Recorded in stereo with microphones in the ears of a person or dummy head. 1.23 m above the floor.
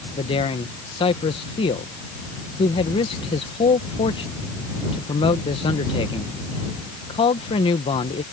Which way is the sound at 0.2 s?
30° left (ahead or behind).